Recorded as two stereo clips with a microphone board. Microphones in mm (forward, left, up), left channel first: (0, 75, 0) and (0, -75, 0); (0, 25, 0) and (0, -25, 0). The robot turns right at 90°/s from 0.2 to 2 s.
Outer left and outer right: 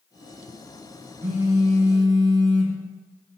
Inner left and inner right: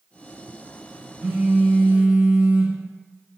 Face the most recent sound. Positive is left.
turn(degrees=-70)